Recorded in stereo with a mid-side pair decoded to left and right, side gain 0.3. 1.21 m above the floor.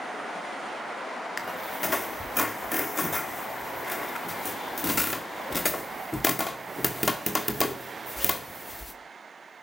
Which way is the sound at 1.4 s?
20° left.